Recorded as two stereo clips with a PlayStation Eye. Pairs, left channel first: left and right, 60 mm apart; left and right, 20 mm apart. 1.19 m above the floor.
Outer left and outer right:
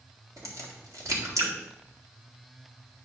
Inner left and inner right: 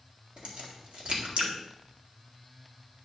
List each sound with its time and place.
0.4 s a crack: 65° right (ahead or behind), 2.0 m